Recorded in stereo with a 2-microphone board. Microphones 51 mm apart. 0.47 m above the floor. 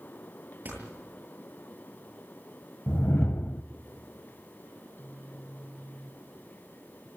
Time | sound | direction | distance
0.7 | a door slam | 35° right (ahead or behind) | 9 m
2.9 | a whoosh | 45° left (ahead or behind) | 0.6 m
4.8 | a phone buzzing | 45° left (ahead or behind) | 2 m